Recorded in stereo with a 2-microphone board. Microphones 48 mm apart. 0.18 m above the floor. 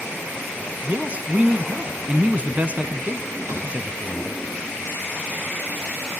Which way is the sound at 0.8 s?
30° right (ahead or behind).